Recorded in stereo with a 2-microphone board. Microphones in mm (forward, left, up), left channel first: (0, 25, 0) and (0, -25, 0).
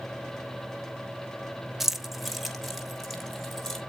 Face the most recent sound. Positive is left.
turn(degrees=5)  # may be behind; listen again after turning